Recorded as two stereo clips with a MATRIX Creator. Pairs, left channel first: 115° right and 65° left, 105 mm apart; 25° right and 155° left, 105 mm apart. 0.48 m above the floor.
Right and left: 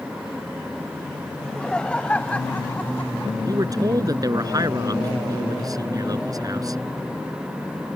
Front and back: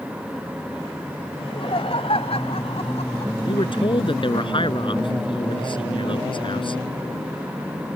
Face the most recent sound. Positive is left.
turn(degrees=15)